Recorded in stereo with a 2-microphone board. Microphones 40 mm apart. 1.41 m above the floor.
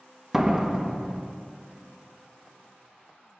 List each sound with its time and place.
0.3 s a door slam: 10° right (ahead or behind), 1.0 m